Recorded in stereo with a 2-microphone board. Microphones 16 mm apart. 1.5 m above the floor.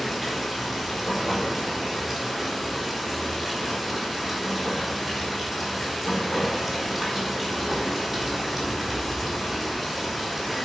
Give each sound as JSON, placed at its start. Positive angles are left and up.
{"t": 0.0, "sound": "running water", "side_deg": 0, "distance_m": 4.0}